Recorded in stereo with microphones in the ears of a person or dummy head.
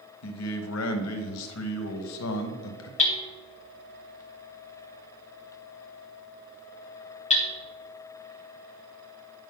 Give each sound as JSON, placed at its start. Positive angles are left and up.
{"t": 0.2, "sound": "a man speaking", "side_deg": 85, "distance_m": 1.0}
{"t": 3.0, "sound": "hammering", "side_deg": 35, "distance_m": 1.3}